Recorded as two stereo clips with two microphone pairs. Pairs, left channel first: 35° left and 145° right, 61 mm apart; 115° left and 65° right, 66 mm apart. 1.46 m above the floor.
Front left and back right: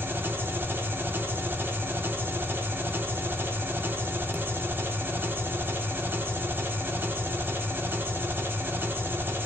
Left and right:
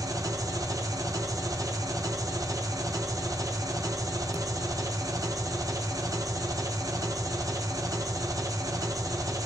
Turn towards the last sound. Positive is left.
turn(degrees=-90)